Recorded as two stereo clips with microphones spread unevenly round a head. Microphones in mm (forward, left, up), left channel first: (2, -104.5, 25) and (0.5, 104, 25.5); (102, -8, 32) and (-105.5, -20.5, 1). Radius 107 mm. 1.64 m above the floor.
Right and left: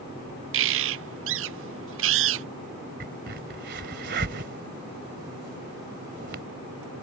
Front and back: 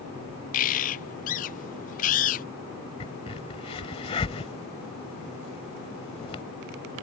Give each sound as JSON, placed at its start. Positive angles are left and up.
{"t": 0.5, "sound": "a bird", "azimuth_deg": 60}
{"t": 3.0, "sound": "a crack", "azimuth_deg": 60}